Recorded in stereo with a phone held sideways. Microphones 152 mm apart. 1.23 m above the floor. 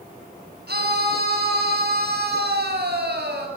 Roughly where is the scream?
Right.